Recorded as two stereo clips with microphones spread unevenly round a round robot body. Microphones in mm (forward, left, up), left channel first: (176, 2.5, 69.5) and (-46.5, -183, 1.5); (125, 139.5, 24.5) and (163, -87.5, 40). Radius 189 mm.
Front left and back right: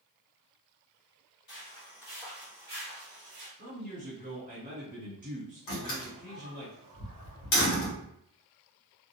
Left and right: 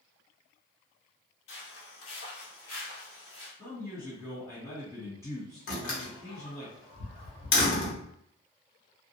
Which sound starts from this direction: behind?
A man speaking, at 3.6 s.